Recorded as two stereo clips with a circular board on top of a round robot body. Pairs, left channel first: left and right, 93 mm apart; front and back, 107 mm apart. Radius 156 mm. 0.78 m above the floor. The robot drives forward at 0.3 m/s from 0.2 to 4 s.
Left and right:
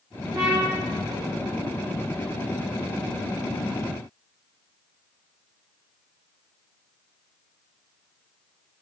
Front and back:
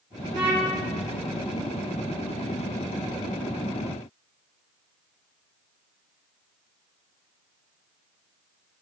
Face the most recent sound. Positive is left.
turn(degrees=-160)